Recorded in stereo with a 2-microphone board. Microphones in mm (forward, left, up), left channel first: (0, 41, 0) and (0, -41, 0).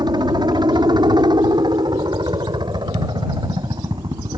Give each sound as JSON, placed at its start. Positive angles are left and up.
{"t": 0.0, "sound": "a helicopter", "side_deg": -60}